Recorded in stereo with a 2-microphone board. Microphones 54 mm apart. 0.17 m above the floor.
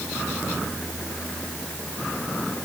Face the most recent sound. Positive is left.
No sound to turn to.